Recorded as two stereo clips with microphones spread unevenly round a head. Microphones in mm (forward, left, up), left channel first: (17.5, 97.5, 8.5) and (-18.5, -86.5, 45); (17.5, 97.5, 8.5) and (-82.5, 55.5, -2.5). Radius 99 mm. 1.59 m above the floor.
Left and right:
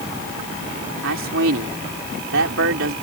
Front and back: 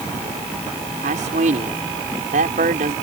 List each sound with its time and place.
1.0 s a man speaking: 125° right